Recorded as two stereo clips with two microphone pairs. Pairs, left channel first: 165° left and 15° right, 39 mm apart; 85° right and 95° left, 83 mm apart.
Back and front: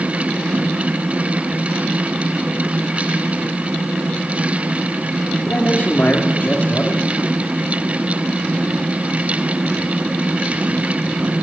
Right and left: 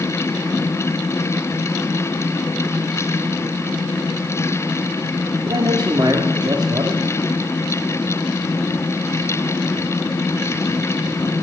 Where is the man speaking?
130° left, 1.8 m.